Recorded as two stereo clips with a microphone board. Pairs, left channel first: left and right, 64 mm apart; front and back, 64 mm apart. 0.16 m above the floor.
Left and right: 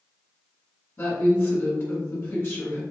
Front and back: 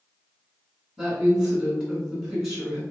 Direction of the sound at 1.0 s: 110° left.